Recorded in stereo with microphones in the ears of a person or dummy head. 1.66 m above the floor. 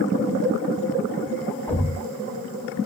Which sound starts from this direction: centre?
A thud, at 1.7 s.